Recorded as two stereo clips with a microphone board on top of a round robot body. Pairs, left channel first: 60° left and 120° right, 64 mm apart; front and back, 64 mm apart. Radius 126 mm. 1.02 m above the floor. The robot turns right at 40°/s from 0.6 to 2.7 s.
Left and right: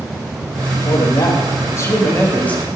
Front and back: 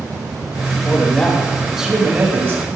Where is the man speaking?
60° left, 2.5 m; by 2.7 s 130° left, 2.5 m.